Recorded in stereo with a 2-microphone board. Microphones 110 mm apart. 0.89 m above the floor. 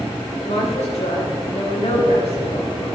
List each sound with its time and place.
0.4 s a woman speaking: 85° left, 4.5 m; by 2.7 s 65° left (ahead or behind), 5 m